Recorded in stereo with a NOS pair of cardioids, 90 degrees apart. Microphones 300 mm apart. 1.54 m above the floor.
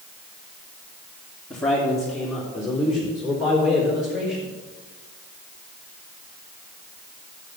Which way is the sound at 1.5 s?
5° left.